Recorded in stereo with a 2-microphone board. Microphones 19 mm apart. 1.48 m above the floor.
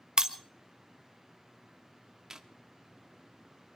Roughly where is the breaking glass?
Right.